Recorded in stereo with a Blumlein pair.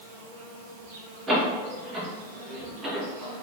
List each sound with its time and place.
0.0 s an insect: 55° right, 2.0 m
1.3 s a door slam: 20° right, 2 m